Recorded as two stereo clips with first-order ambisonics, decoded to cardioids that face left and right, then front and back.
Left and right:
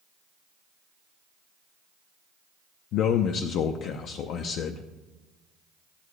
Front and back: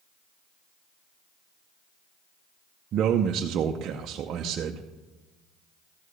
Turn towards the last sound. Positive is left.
turn(degrees=130)